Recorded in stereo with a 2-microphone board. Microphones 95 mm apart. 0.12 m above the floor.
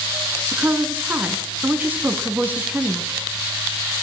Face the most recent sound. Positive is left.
turn(degrees=-20)  # may be behind; listen again after turning